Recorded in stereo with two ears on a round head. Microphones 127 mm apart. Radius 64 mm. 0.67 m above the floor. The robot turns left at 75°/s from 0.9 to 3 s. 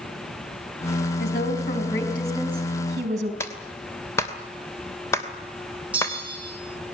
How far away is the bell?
About 5.5 m.